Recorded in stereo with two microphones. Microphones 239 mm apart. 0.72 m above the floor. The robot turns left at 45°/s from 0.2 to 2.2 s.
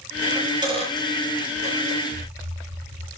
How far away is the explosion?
About 8 m.